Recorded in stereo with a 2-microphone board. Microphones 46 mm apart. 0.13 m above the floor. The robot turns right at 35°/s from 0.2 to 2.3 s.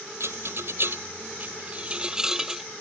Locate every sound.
0.2 s a rattle: 70° right (ahead or behind); by 2.6 s 10° right (ahead or behind)